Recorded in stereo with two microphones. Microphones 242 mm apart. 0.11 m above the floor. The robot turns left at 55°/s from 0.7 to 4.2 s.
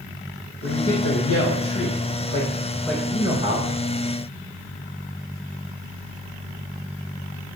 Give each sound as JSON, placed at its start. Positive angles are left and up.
{"t": 0.6, "sound": "a man speaking", "azimuth_deg": 125, "distance_m": 4.5}